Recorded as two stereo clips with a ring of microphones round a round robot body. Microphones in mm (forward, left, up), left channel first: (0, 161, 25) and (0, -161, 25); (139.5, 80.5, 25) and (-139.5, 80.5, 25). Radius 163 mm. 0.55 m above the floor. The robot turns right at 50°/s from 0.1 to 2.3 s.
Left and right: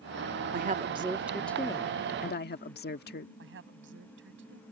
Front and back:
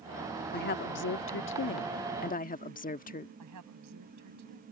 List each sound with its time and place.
0.5 s a woman speaking: 45° right; by 3.3 s 45° left
3.4 s a woman speaking: 145° right